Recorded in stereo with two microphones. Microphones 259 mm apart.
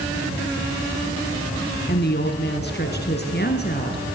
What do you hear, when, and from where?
1.9 s a woman speaking: 40° left (ahead or behind), 1.8 m